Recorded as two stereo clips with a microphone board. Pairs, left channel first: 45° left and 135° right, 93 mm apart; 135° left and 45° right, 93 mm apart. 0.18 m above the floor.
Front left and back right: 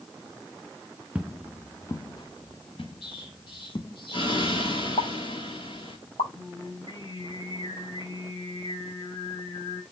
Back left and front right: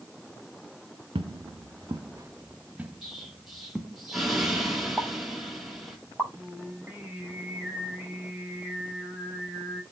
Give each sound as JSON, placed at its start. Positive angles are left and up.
{"t": 1.1, "sound": "footsteps", "azimuth_deg": -60, "distance_m": 0.9}
{"t": 3.0, "sound": "an explosion", "azimuth_deg": 40, "distance_m": 5.5}
{"t": 5.0, "sound": "a pop", "azimuth_deg": 45, "distance_m": 8.0}
{"t": 6.3, "sound": "singing", "azimuth_deg": 30, "distance_m": 7.5}